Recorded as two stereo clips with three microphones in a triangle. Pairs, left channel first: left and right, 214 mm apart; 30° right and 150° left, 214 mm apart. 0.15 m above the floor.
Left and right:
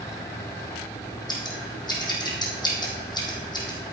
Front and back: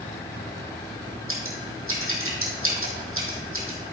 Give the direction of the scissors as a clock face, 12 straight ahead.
7 o'clock.